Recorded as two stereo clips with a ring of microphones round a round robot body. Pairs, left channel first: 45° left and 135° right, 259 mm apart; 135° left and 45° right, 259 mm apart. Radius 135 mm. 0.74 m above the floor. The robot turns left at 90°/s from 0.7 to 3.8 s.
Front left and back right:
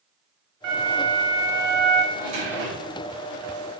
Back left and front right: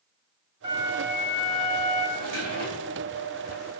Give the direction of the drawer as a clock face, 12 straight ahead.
2 o'clock.